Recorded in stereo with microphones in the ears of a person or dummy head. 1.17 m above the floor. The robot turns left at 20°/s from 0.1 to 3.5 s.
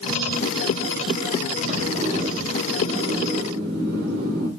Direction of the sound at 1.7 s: 35° right.